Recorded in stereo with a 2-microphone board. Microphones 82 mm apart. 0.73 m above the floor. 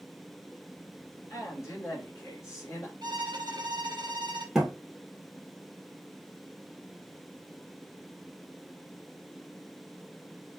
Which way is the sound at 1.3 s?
35° left (ahead or behind).